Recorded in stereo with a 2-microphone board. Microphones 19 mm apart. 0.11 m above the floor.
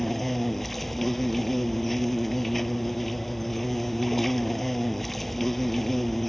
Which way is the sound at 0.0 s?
10° left (ahead or behind).